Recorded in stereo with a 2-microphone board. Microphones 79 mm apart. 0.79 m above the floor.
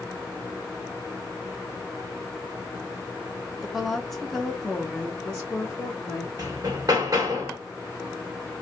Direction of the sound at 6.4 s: 50° right (ahead or behind).